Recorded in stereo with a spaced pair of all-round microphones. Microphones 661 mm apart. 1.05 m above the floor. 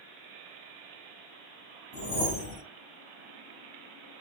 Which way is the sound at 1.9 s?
10° right (ahead or behind).